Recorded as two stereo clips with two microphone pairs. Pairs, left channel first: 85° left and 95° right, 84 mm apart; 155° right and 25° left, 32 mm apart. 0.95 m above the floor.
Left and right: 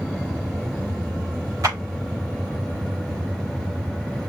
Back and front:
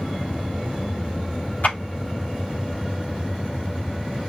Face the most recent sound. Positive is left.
turn(degrees=-130)